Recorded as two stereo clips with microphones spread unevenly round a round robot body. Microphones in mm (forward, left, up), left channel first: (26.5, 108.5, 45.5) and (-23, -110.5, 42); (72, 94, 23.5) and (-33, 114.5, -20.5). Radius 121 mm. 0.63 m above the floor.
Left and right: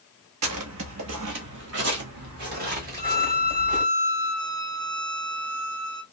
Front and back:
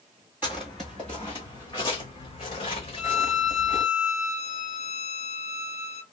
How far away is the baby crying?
No baby crying in this recording.